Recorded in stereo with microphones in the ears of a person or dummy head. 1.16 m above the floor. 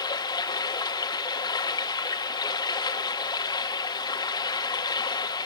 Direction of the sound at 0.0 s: 20° left (ahead or behind).